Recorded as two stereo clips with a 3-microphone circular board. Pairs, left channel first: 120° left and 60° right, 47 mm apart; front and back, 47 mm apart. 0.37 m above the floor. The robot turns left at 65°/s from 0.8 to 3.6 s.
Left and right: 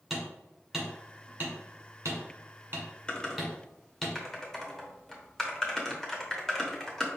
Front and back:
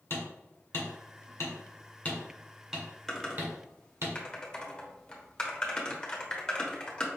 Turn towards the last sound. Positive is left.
turn(degrees=50)